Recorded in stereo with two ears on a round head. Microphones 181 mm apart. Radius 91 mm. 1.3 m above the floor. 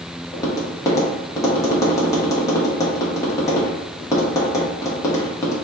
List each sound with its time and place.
0.3 s tapping: 15° left (ahead or behind), 0.8 m